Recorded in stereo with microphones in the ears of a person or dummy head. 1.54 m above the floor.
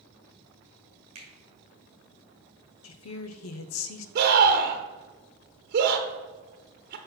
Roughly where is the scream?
Right.